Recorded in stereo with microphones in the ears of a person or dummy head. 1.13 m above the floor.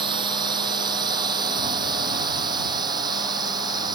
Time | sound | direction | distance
0.0 | a drone | 30° right (ahead or behind) | ?